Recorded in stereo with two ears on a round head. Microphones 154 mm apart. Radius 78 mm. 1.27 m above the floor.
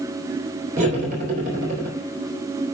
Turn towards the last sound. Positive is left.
turn(degrees=-50)  # may be behind; listen again after turning